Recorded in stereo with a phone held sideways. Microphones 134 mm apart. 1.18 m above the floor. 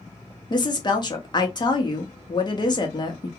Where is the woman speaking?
35° left (ahead or behind), 0.8 m.